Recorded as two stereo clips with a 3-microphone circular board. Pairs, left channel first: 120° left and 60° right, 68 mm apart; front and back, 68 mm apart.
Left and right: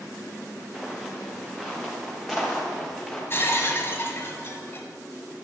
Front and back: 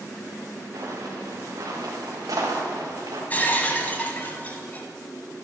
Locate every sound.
0.7 s footsteps: 150° right, 2 m; by 3.2 s 155° right, 4 m
3.3 s breaking glass: 65° left, 1.1 m